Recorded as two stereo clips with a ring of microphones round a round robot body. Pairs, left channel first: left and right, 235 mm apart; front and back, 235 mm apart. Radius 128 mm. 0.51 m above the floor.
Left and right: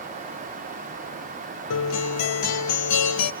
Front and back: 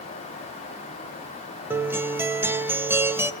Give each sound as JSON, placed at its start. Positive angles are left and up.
{"t": 1.7, "sound": "a guitar", "azimuth_deg": 100, "distance_m": 1.4}